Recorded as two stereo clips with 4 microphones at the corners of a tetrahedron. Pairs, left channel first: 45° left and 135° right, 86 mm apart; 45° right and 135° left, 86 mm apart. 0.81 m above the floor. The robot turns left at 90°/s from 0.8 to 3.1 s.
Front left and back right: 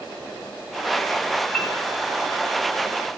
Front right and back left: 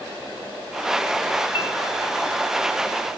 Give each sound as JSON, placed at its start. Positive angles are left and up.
{"t": 1.5, "sound": "a piano", "azimuth_deg": -30, "distance_m": 2.0}